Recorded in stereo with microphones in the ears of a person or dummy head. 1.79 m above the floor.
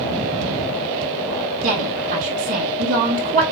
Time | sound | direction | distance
1.6 | a woman speaking | 45° right (ahead or behind) | 1.8 m